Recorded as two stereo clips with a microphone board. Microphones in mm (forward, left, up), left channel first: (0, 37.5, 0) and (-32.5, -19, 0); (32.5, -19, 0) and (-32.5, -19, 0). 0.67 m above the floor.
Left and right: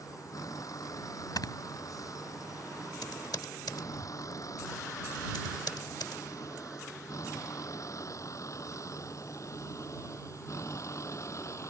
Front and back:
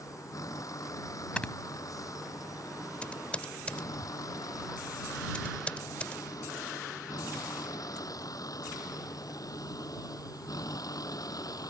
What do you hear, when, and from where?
0.0 s a vehicle: 30° left; by 11.7 s 20° left
1.4 s snoring: 70° left
3.0 s typing on a keyboard: 70° left